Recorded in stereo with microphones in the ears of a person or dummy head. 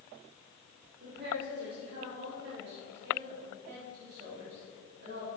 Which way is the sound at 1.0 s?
60° right (ahead or behind).